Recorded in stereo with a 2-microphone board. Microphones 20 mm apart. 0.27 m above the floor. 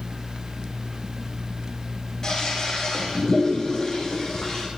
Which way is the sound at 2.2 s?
30° left (ahead or behind).